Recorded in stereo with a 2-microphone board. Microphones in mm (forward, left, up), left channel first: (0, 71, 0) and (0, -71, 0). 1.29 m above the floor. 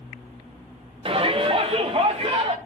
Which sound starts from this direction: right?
A shout, at 1.1 s.